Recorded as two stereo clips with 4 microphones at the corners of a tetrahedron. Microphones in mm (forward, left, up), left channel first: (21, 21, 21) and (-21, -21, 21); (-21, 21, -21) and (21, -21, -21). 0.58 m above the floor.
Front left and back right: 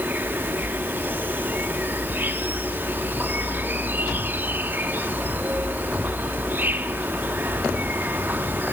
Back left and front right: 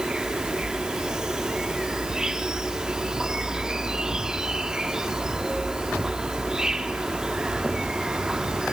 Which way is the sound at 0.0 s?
110° right.